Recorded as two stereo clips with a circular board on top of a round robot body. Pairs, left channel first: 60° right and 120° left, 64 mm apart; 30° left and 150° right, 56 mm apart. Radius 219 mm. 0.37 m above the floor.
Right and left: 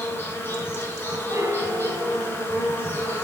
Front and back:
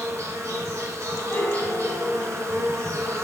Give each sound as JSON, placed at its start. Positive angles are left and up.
{"t": 0.0, "sound": "an insect", "azimuth_deg": -115, "distance_m": 1.6}
{"t": 1.3, "sound": "a piano", "azimuth_deg": 80, "distance_m": 1.3}